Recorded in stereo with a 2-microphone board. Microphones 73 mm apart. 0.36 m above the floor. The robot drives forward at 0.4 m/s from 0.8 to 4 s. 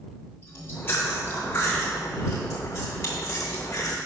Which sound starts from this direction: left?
Chewing, at 0.4 s.